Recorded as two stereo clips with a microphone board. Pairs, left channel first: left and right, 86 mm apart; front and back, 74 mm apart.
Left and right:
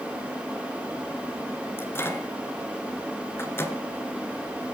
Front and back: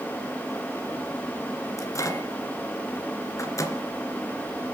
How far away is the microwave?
About 2 m.